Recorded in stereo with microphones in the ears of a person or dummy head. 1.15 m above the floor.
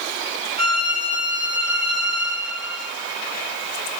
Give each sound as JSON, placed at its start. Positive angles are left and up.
{"t": 0.6, "sound": "a violin", "side_deg": 25, "distance_m": 4.5}